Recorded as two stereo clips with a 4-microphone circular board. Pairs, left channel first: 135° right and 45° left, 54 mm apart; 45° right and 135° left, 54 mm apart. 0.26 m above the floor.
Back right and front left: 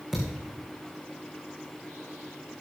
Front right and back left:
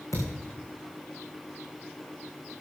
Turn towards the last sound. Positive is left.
turn(degrees=-35)